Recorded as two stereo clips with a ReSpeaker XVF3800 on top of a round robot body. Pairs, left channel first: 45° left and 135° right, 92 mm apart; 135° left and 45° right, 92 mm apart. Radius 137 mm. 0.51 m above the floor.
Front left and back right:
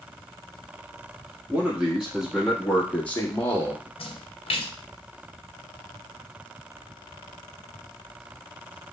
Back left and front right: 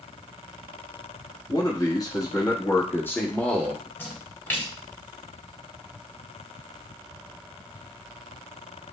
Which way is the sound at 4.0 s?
65° left.